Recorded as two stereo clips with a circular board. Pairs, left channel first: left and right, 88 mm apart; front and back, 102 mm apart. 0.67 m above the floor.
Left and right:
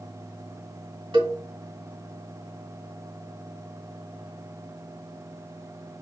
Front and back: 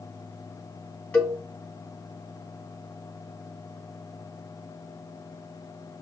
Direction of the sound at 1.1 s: 75° right.